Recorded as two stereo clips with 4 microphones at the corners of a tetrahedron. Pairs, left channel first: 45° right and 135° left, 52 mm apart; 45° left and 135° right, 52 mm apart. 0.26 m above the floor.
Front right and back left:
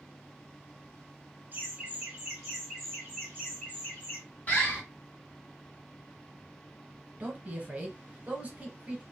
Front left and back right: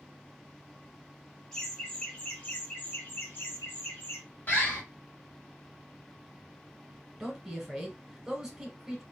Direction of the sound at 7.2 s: 155° left.